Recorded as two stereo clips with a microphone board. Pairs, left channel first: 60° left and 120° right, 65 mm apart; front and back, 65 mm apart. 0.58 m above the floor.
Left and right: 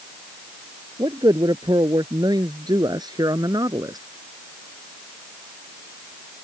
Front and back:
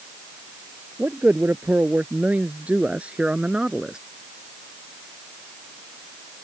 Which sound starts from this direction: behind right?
A man speaking, at 1.0 s.